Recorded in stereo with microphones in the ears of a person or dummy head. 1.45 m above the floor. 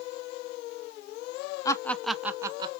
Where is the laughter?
20° left (ahead or behind), 0.6 m; by 2.7 s 30° right (ahead or behind), 0.8 m.